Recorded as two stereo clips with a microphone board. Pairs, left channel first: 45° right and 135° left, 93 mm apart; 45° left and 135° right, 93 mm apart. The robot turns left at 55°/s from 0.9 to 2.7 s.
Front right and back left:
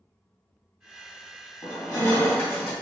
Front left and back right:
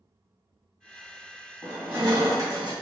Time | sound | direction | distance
1.6 | crushing | 70° right | 2 m